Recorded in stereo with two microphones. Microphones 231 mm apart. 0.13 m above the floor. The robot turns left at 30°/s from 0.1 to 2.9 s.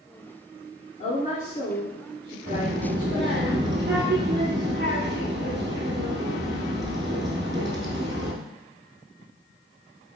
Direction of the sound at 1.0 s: 105° left.